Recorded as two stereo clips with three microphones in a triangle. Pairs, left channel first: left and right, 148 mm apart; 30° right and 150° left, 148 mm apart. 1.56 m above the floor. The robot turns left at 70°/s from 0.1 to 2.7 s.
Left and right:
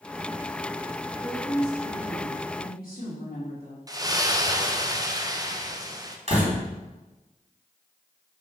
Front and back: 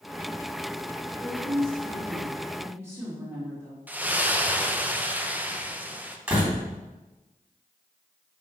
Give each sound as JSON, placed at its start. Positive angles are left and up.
{"t": 1.2, "sound": "a woman speaking", "azimuth_deg": 180, "distance_m": 3.0}
{"t": 3.9, "sound": "a splash", "azimuth_deg": -140, "distance_m": 0.7}
{"t": 6.3, "sound": "a door slam", "azimuth_deg": -135, "distance_m": 3.0}